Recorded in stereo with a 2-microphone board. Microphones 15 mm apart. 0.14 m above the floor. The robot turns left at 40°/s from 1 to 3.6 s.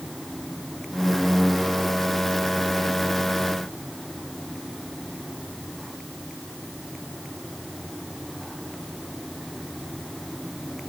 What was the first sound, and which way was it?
Only background noise.